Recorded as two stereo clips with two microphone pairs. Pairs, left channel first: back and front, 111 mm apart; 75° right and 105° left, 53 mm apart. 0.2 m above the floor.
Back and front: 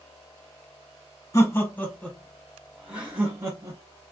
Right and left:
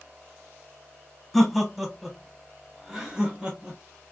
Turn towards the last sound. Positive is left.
turn(degrees=45)